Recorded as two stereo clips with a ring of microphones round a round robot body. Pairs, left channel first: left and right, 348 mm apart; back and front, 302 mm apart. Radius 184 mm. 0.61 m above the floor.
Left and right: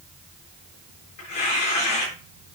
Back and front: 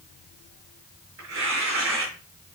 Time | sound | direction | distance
1.2 | tearing paper | 45° left | 6.5 m